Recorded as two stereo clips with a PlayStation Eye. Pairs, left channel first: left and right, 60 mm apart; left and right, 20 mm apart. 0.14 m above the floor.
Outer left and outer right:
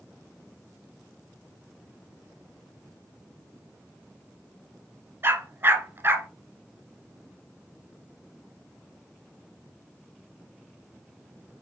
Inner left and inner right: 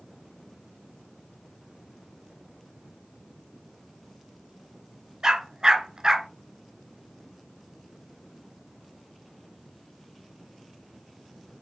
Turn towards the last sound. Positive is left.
turn(degrees=-40)  # may be behind; listen again after turning